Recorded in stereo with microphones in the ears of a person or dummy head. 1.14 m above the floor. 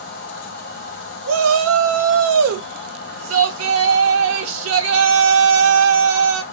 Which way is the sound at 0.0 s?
65° left (ahead or behind).